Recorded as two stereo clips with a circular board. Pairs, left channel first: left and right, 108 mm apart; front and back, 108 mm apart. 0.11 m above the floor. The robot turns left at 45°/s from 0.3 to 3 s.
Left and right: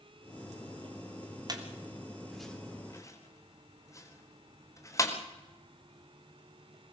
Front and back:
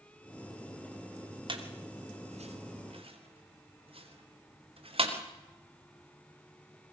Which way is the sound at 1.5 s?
140° right.